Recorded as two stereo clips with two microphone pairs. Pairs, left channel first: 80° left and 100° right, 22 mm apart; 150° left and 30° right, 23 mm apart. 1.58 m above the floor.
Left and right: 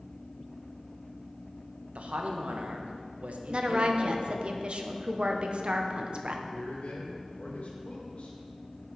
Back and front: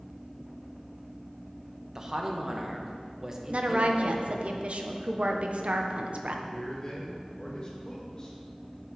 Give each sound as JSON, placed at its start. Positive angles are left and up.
{"t": 1.9, "sound": "a man speaking", "azimuth_deg": -95, "distance_m": 1.2}
{"t": 3.5, "sound": "a woman speaking", "azimuth_deg": -60, "distance_m": 1.0}
{"t": 6.5, "sound": "a man speaking", "azimuth_deg": 95, "distance_m": 2.5}